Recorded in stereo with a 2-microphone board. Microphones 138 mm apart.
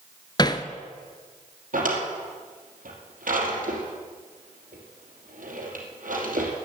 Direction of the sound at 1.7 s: 75° right (ahead or behind).